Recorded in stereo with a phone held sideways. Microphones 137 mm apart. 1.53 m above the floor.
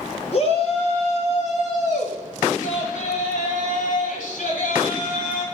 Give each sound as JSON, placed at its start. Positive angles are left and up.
{"t": 0.3, "sound": "a shout", "side_deg": 50, "distance_m": 4.5}